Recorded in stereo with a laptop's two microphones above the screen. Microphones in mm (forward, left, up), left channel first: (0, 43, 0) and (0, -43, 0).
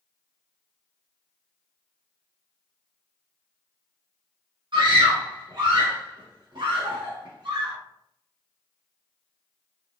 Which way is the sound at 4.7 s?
60° right (ahead or behind).